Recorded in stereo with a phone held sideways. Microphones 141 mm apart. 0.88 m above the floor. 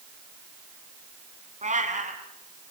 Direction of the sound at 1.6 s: 60° right (ahead or behind).